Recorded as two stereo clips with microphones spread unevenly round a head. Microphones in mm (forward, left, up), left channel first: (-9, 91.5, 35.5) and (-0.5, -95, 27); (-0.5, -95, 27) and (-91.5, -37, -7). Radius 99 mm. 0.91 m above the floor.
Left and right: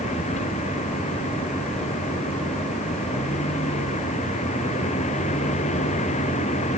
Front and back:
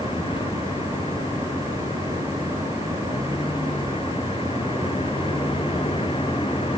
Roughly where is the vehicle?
Ahead left.